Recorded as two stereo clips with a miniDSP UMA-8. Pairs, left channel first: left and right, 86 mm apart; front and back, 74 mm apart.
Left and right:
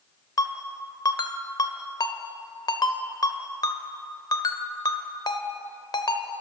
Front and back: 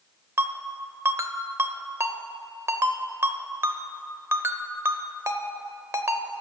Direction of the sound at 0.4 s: 130° left.